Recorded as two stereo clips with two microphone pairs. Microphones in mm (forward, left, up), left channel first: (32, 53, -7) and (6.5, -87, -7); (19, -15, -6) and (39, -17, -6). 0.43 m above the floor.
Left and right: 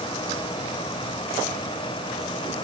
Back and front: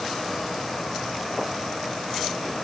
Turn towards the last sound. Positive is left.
No sound to turn to.